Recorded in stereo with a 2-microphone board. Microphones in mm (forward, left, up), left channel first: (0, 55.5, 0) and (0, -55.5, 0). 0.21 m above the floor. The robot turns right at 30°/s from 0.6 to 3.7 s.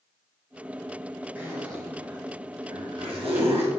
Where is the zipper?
15° right (ahead or behind), 3.5 m; by 3.7 s 65° right (ahead or behind), 3.5 m.